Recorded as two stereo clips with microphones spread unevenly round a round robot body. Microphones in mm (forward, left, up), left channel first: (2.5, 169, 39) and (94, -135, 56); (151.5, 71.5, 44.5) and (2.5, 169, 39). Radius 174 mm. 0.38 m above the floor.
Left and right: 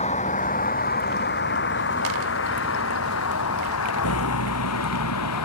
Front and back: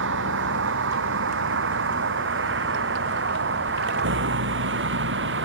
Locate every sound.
0.0 s a vehicle: straight behind; by 5.5 s 150° left